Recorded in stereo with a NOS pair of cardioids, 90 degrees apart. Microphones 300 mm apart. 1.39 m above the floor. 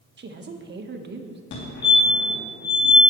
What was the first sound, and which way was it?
A woman speaking, 35° right.